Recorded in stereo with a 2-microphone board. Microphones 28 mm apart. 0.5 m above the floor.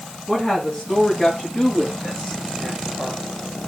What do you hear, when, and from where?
0.3 s a woman speaking: 20° left (ahead or behind), 5 m; by 3.2 s 15° left (ahead or behind), 7 m